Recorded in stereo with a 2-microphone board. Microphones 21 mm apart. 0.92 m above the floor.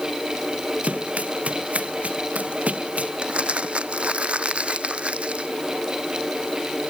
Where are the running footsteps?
75° right (ahead or behind).